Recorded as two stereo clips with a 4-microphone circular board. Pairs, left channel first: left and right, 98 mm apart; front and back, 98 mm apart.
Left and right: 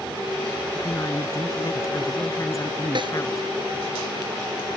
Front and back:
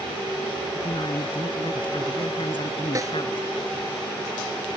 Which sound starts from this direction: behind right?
A snare drum, at 3.0 s.